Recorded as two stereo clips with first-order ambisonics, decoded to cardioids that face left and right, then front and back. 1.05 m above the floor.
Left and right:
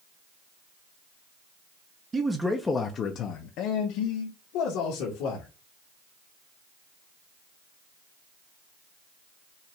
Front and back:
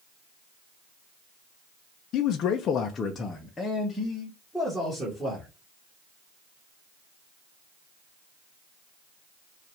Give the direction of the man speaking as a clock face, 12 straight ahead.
1 o'clock.